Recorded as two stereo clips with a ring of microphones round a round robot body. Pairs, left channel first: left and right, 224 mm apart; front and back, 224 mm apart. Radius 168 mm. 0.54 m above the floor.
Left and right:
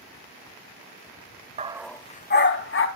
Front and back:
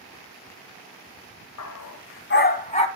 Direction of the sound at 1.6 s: 30° right.